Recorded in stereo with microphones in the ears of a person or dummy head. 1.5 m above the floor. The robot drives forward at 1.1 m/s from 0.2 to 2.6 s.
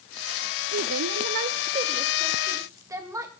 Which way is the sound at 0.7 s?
60° right (ahead or behind).